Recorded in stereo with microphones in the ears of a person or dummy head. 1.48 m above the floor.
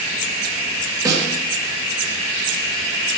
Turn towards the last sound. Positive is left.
turn(degrees=-20)  # may be behind; listen again after turning